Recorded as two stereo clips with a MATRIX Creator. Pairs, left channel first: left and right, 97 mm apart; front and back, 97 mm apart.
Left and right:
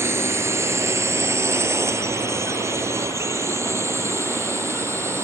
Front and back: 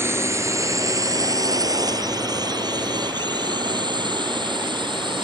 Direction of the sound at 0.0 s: 135° right.